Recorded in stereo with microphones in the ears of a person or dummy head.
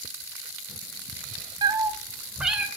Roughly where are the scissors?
I don't hear scissors.